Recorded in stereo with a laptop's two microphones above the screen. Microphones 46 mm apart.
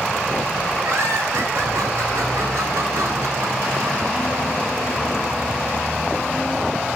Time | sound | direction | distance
0.8 | laughter | 75° right (ahead or behind) | 5.5 m